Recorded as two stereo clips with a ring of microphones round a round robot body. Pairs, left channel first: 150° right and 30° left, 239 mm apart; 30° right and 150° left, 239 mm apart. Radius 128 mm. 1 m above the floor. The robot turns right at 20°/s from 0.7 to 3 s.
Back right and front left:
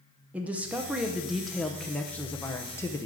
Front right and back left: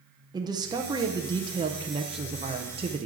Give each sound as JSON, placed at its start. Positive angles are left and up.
{"t": 0.3, "sound": "a man speaking", "azimuth_deg": 105, "distance_m": 0.7}